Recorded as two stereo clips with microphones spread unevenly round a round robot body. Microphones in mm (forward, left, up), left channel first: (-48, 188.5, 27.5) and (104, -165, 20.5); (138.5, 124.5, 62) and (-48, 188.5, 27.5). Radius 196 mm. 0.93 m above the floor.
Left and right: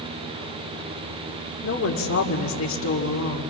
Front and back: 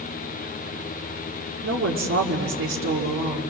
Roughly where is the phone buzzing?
No phone buzzing in this recording.